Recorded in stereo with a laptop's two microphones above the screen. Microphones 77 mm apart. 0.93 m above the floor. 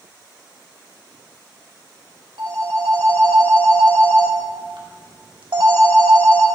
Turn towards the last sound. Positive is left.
turn(degrees=-80)